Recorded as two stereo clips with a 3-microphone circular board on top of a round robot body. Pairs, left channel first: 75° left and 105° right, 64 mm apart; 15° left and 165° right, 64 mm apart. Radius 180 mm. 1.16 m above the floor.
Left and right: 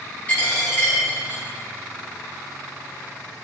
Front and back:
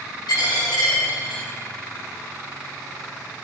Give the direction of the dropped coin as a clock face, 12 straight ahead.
12 o'clock.